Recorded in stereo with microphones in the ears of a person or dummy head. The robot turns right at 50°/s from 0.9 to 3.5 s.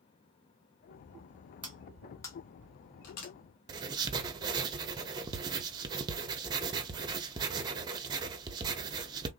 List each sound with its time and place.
1.6 s cutlery clinking: 10° right (ahead or behind), 1.2 m; by 3.3 s 60° left (ahead or behind), 1.2 m
3.7 s writing: 25° right (ahead or behind), 0.7 m